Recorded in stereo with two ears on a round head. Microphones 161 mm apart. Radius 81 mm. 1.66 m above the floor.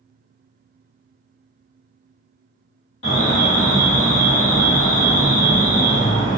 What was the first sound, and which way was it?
An alarm, 75° left (ahead or behind).